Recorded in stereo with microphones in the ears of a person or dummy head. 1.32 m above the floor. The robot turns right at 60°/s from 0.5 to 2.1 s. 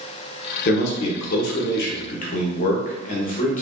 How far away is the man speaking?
About 0.9 m.